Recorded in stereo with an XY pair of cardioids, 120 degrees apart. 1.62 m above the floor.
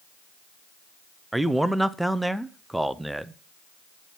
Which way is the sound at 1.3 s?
5° right.